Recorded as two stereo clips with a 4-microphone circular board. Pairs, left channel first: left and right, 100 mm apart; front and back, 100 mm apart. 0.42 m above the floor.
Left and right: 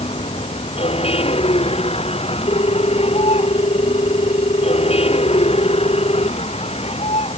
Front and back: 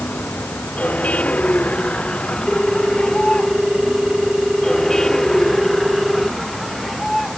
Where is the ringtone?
95° left.